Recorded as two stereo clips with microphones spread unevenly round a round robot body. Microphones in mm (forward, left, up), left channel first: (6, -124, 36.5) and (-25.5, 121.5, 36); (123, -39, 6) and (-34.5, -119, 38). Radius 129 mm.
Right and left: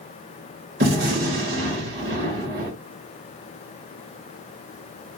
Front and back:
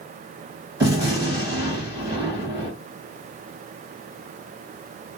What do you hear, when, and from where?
0.8 s a gunshot: 130° left, 1.5 m